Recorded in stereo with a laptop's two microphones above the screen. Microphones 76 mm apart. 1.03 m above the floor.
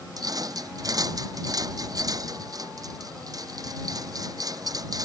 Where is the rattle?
50° right (ahead or behind).